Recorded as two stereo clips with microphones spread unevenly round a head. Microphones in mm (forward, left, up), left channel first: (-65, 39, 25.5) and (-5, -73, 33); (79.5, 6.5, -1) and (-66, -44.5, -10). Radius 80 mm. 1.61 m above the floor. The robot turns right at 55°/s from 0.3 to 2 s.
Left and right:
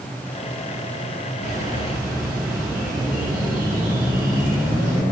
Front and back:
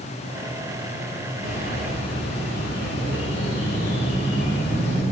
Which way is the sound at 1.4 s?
15° right.